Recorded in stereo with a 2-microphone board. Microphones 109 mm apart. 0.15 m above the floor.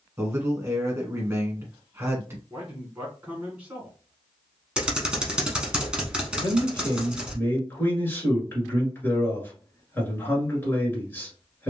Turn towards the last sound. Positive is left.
turn(degrees=20)  # may be behind; listen again after turning